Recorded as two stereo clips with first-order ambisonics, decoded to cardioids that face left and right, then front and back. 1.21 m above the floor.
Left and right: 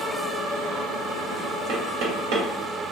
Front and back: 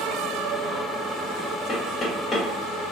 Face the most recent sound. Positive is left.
turn(degrees=-70)